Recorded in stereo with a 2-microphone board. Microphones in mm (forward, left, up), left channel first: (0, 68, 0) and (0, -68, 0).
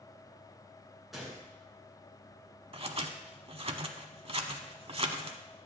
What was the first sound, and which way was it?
A gunshot, centre (ahead or behind).